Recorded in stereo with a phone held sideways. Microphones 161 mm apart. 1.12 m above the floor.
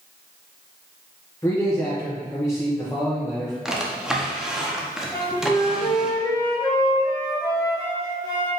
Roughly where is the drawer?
Centre.